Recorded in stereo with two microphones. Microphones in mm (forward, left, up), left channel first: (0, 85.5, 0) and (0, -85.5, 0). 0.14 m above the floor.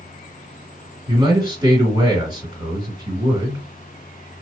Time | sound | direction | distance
1.1 | a man speaking | 25° right (ahead or behind) | 2 m